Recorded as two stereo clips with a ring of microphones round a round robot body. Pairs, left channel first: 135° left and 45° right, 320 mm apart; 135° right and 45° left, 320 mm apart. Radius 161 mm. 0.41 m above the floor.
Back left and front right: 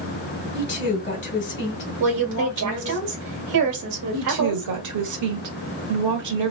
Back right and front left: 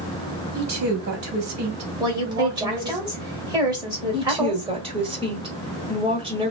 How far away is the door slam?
No door slam in this recording.